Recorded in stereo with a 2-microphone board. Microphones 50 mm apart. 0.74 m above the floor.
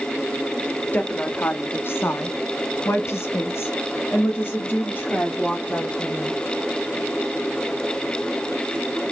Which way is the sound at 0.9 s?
35° left (ahead or behind).